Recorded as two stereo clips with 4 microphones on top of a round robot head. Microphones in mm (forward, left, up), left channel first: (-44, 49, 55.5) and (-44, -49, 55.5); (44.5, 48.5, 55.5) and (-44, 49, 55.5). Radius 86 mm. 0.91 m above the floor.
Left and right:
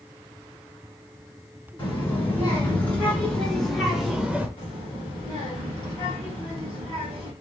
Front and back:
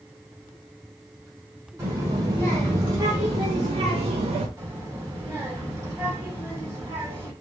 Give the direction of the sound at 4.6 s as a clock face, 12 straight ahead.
8 o'clock.